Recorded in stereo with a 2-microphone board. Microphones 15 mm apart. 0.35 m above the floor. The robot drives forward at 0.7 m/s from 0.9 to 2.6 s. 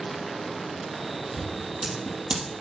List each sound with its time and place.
1.3 s scissors: 85° right, 4 m